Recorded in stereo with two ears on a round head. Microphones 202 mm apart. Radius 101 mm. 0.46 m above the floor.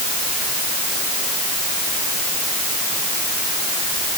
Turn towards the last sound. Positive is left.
No sound to turn to.